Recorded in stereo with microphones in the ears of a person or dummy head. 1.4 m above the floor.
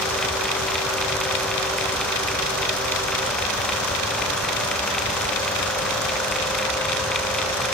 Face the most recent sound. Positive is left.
No sound to turn to.